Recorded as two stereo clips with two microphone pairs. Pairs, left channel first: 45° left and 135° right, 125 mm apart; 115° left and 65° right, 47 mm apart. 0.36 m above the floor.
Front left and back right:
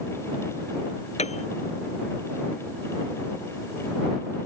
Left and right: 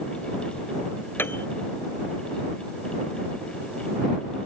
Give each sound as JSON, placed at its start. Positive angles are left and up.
{"t": 1.2, "sound": "a piano", "azimuth_deg": 70}